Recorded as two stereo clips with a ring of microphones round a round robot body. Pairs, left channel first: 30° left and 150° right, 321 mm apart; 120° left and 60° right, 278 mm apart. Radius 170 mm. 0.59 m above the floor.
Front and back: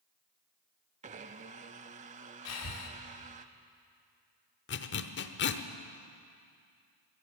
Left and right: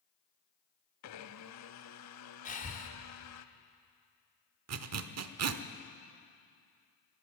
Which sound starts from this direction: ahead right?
A zipper, at 4.7 s.